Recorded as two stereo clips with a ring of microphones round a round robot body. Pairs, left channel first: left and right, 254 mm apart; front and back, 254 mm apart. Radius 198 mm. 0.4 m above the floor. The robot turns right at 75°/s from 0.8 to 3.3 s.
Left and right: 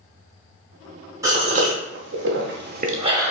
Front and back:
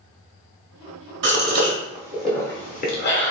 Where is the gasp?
165° right, 0.8 m; by 3.3 s 10° right, 0.8 m.